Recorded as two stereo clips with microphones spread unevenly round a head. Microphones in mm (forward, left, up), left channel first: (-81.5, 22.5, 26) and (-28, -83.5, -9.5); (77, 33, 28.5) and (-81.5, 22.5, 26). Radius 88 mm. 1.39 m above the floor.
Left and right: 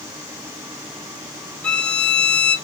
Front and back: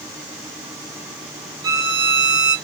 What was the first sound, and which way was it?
A violin, 135° left.